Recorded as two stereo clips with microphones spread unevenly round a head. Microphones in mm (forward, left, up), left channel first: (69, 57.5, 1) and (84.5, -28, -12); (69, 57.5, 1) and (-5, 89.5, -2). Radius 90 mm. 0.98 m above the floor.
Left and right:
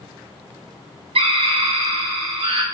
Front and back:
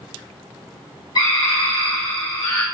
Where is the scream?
90° right, 2.5 m.